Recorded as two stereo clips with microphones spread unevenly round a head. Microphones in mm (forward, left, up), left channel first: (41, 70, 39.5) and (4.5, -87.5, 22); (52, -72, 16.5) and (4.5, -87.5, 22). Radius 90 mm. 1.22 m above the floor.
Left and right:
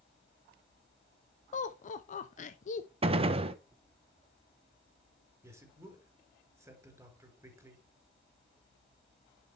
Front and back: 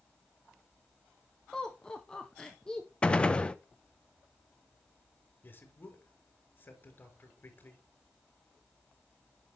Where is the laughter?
75° left, 0.7 m.